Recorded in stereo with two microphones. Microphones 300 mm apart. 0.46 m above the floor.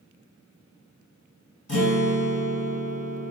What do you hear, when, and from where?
1.7 s a guitar: 75° left (ahead or behind), 1.4 m